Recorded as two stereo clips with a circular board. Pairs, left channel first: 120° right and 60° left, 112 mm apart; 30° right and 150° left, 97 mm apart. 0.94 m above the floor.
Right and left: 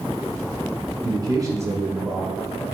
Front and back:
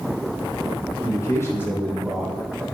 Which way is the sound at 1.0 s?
20° left.